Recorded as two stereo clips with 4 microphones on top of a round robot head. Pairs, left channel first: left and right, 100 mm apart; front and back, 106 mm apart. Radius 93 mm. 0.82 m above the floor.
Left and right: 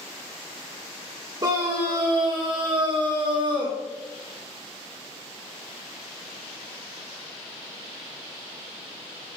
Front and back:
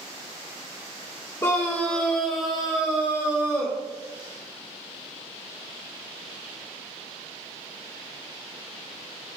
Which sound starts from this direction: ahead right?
A scream, at 1.4 s.